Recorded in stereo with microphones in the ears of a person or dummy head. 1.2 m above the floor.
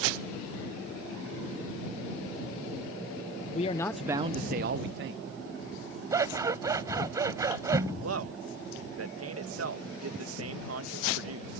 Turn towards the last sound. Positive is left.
turn(degrees=-80)